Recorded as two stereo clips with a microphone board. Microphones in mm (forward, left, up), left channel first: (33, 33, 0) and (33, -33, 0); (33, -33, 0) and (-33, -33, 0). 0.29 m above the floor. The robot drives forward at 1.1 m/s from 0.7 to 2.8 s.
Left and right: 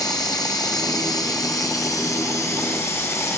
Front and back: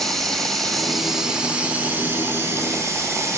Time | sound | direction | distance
0.0 | running water | 85° left | 2 m